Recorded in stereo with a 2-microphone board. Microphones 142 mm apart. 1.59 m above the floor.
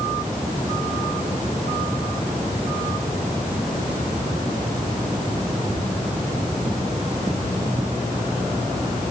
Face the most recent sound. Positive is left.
No sound to turn to.